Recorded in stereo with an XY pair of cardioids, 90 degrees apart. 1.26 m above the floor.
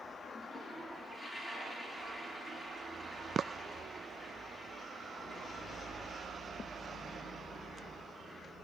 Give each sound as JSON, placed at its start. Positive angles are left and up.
{"t": 0.3, "sound": "a toilet flushing", "azimuth_deg": 20, "distance_m": 4.0}